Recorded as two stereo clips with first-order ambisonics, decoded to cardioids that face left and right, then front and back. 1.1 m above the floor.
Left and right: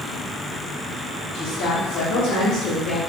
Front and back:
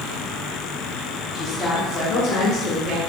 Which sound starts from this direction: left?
A woman speaking, at 1.3 s.